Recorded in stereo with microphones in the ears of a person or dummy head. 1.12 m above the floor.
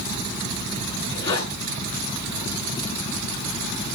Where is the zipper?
30° left (ahead or behind), 7.5 m.